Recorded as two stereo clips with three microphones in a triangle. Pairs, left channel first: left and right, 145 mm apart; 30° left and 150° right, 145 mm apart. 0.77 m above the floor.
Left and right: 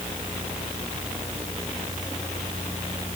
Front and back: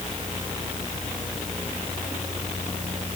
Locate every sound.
Only background noise.